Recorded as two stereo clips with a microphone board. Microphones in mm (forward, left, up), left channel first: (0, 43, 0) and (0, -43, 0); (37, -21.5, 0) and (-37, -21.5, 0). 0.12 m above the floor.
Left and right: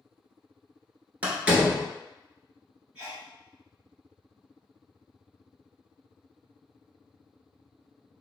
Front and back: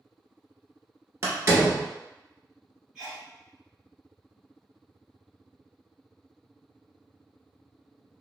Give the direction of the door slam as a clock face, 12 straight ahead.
5 o'clock.